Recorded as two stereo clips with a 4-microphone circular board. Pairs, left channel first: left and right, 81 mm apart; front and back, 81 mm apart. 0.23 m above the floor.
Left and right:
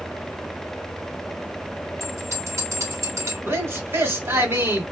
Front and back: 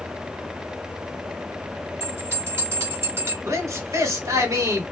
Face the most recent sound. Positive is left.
turn(degrees=-145)